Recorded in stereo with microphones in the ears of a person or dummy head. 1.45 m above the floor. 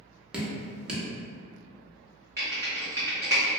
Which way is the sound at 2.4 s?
20° right (ahead or behind).